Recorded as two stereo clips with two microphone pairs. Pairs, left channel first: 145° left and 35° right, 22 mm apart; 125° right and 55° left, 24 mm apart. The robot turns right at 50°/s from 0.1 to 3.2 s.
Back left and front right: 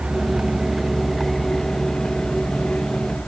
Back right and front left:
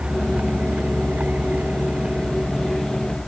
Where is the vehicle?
5° left; by 3.3 s 155° left.